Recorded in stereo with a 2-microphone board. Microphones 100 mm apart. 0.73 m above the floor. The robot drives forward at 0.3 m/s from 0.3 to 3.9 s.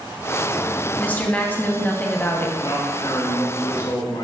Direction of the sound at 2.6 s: 50° left (ahead or behind).